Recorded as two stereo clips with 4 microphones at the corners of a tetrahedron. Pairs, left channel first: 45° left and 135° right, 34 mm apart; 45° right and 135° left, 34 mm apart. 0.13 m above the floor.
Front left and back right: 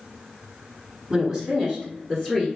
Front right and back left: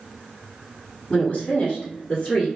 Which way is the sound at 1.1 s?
65° right.